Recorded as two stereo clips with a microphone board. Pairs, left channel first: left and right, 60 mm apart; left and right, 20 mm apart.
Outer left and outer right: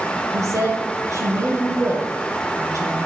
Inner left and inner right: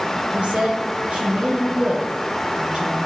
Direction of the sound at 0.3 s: 60° right (ahead or behind).